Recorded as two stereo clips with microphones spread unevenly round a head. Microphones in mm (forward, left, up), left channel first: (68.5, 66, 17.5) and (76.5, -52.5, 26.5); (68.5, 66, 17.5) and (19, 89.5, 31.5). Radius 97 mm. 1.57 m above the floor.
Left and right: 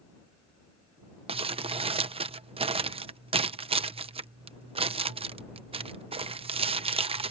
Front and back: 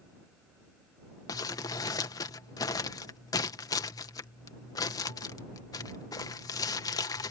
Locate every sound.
1.3 s crumpling: 50° right